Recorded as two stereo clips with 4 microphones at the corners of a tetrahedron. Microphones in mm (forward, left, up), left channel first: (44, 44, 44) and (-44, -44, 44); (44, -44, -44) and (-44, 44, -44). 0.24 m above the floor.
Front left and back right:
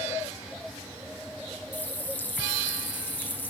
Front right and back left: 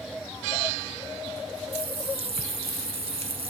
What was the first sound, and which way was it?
A running tap, 120° left.